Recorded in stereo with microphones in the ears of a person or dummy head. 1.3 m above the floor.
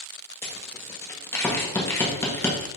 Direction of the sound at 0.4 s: 15° left (ahead or behind).